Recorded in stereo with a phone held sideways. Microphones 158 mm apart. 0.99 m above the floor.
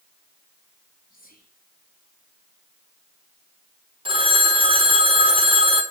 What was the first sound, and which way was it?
Whispering, 65° left (ahead or behind).